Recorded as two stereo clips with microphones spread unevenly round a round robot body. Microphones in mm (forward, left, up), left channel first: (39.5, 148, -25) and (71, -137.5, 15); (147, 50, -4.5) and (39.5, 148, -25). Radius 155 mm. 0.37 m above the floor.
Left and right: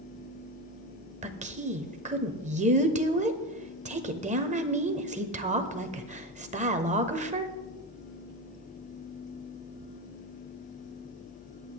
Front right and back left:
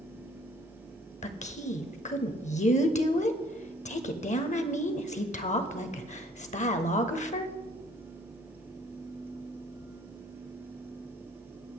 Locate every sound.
1.2 s a woman speaking: 15° right, 1.2 m